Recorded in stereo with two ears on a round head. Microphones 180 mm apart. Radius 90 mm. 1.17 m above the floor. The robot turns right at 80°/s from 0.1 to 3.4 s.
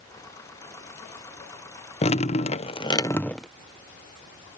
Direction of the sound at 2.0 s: 65° left.